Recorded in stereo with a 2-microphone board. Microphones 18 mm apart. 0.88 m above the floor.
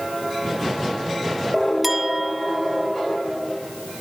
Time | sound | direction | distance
1.8 | a clink | 15° right (ahead or behind) | 1.2 m